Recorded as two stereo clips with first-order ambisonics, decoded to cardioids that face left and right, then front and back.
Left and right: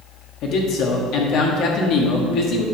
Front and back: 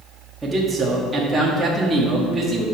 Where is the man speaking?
105° left, 1.4 m.